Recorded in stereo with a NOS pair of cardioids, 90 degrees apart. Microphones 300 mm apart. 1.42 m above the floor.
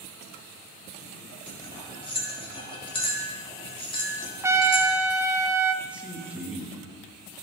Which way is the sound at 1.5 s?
15° left.